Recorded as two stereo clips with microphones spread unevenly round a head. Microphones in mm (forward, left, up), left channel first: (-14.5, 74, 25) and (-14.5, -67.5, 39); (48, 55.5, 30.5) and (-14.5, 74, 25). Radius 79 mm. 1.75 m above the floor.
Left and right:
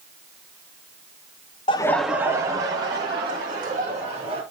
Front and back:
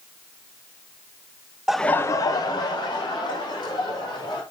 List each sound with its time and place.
1.7 s laughter: 85° left, 0.6 m; by 4.4 s 30° right, 4 m